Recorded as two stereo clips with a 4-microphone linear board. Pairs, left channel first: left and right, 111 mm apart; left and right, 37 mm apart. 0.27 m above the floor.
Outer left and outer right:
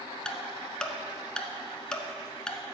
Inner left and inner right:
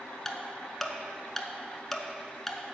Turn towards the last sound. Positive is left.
turn(degrees=5)  # may be behind; listen again after turning